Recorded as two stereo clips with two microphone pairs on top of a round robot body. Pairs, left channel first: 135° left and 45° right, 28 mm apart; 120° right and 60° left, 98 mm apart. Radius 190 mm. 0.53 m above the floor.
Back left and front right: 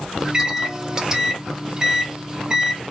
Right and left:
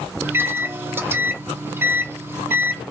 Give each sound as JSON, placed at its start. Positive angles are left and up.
{"t": 0.2, "sound": "a microwave", "azimuth_deg": 30, "distance_m": 1.0}